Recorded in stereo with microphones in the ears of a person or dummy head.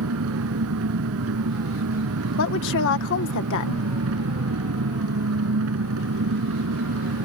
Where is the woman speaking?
70° left (ahead or behind).